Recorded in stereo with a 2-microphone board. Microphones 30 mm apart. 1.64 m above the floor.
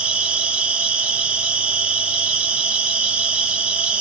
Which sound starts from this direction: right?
An insect, at 0.0 s.